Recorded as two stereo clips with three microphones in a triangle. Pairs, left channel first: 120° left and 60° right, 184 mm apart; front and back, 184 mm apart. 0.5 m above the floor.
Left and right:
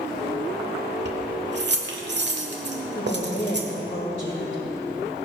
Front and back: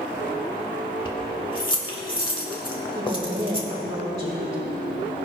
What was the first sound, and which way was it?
Keys jangling, 60° right.